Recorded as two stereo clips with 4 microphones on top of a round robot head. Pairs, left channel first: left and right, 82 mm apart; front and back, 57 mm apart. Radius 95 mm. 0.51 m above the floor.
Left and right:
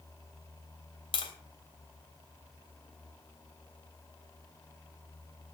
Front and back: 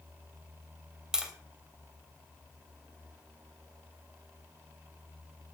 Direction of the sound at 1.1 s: 100° left.